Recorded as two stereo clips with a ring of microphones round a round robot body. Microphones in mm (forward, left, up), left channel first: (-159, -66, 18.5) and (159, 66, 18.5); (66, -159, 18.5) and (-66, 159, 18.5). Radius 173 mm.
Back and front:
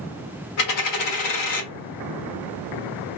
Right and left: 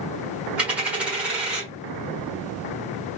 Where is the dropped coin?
160° right, 1.1 m.